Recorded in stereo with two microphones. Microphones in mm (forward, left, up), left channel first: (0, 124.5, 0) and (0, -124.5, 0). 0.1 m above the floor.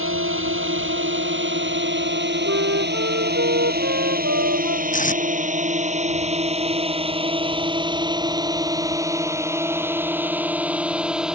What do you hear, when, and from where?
0.0 s a drone: 55° right (ahead or behind); by 11.3 s 5° right (ahead or behind)
2.5 s a flute: 65° right (ahead or behind)
4.9 s tape being pulled: 30° left (ahead or behind)